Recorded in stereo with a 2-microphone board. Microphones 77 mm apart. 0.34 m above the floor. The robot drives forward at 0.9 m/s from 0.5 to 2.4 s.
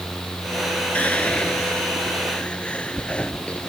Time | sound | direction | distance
0.9 | whispering | 15° left (ahead or behind) | ?